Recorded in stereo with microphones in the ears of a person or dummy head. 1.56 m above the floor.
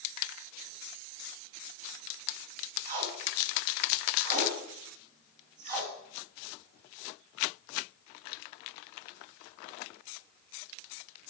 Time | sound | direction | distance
2.9 | tape being pulled | 35° right (ahead or behind) | 1.5 m